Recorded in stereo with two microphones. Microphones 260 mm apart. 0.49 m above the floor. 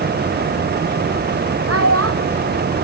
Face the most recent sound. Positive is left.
turn(degrees=-60)  # may be behind; listen again after turning